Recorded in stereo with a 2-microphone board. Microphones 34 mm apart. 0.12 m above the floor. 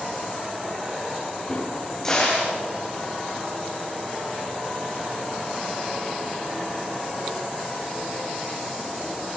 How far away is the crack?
About 9 m.